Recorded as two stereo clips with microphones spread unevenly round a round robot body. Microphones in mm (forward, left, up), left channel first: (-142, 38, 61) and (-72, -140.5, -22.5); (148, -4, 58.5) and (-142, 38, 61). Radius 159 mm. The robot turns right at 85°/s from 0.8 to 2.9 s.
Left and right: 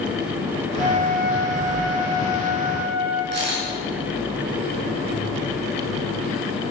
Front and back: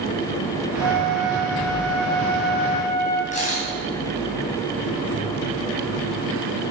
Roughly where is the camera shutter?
Right.